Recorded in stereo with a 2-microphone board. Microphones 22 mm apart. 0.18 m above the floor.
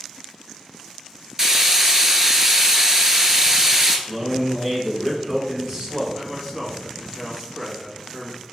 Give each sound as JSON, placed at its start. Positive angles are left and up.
{"t": 1.4, "sound": "frying", "side_deg": -25, "distance_m": 0.6}
{"t": 4.1, "sound": "a man speaking", "side_deg": -25, "distance_m": 1.2}
{"t": 6.1, "sound": "a man speaking", "side_deg": -10, "distance_m": 1.0}